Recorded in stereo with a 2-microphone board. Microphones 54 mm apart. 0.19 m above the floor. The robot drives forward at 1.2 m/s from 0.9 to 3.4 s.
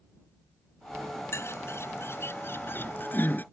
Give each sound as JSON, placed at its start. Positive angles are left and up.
{"t": 1.3, "sound": "a bird", "side_deg": 55}